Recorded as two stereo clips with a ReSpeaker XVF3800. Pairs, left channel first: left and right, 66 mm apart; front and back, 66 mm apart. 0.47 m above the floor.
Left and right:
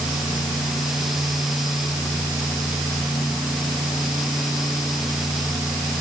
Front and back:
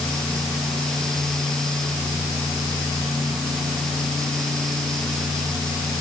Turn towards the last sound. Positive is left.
No sound to turn to.